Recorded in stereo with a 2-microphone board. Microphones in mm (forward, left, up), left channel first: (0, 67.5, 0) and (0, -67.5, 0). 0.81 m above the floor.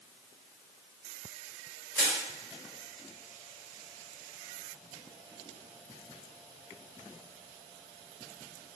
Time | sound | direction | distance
1.9 | crushing | 15° left (ahead or behind) | 1.5 m